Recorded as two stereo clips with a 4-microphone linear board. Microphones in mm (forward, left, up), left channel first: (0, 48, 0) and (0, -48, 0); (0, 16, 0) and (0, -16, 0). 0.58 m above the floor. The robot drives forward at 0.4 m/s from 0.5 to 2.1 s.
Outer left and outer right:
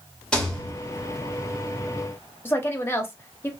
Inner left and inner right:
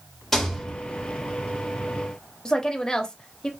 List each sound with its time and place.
0.3 s a rattle: 5° left (ahead or behind), 1.3 m; by 0.7 s 10° left (ahead or behind), 1.2 m
2.5 s a woman speaking: 25° left (ahead or behind), 0.7 m